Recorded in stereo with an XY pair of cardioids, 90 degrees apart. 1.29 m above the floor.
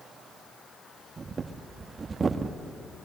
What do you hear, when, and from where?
1.2 s breathing: 40° right, 1.6 m